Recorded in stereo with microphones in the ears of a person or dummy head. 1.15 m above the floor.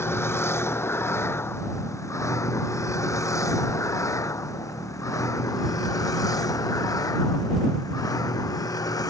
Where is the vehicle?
10° left (ahead or behind); by 9.1 s 15° left (ahead or behind).